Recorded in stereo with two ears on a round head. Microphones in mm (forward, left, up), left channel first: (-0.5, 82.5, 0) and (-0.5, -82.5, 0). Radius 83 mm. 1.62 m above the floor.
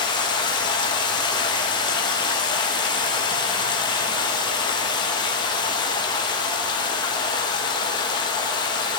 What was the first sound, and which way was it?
Running water, 25° left (ahead or behind).